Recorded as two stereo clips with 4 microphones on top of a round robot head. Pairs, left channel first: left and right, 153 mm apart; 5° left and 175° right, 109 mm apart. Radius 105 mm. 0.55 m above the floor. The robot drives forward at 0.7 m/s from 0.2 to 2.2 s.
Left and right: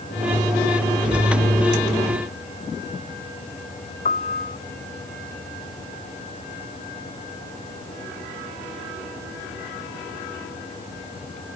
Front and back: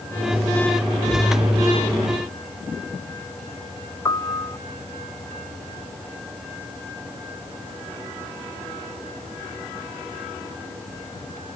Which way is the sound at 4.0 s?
60° left.